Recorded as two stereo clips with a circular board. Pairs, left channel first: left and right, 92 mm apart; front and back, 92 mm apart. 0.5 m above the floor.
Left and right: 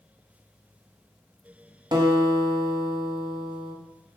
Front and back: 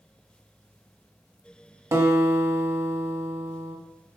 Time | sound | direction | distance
1.9 | a guitar | 125° right | 0.8 m